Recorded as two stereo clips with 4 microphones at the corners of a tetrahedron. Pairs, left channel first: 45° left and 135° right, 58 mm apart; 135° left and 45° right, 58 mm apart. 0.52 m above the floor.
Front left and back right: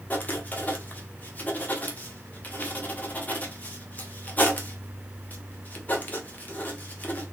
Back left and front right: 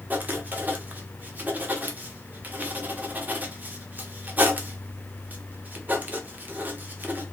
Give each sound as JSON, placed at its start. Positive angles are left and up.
{"t": 0.1, "sound": "writing", "azimuth_deg": 0, "distance_m": 0.7}